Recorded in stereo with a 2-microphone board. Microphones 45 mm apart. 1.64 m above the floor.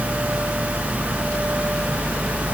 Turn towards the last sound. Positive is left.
No sound to turn to.